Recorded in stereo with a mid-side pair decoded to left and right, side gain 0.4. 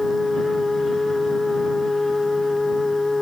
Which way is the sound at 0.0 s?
20° left.